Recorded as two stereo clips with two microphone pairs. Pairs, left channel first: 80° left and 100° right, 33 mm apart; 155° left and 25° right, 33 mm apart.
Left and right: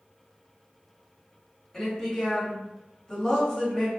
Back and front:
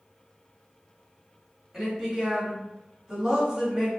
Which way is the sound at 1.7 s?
45° left.